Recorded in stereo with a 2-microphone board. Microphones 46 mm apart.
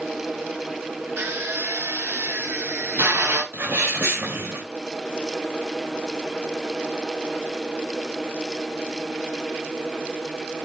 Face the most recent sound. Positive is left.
turn(degrees=-60)  # may be behind; listen again after turning